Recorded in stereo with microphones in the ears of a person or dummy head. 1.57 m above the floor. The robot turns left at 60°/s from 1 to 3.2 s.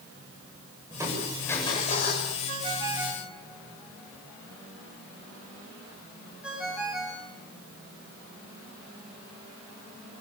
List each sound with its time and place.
0.9 s crushing: 165° right, 8.5 m; by 2.3 s 115° left, 8.5 m
2.5 s a ringtone: 45° right (ahead or behind), 7.5 m; by 7.3 s centre (ahead or behind), 7.5 m